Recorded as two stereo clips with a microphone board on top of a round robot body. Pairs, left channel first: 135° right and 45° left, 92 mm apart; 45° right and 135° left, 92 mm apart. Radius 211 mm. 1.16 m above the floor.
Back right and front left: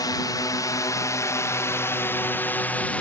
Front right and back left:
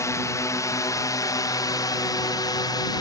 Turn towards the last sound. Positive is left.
turn(degrees=-65)